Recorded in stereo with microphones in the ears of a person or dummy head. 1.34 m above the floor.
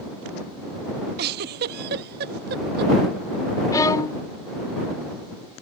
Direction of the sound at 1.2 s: 60° right (ahead or behind).